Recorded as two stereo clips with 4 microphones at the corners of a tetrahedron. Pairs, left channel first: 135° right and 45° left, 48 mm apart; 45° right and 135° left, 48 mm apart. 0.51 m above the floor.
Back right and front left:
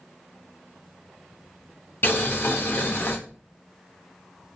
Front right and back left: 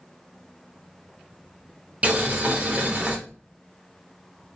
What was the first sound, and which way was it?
Boiling, 170° right.